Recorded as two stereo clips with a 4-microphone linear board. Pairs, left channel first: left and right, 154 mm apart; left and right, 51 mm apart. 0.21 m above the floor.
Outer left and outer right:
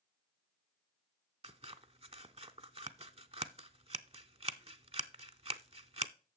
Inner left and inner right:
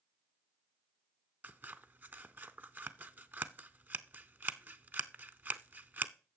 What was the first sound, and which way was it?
Scissors, 40° right (ahead or behind).